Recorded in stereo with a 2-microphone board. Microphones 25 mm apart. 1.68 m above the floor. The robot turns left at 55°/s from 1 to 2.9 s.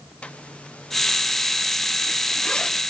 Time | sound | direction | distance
0.2 | a zipper | 55° left (ahead or behind) | 1.2 m